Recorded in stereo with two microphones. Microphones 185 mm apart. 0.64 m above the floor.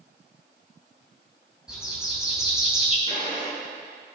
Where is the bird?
5° right (ahead or behind), 3 m.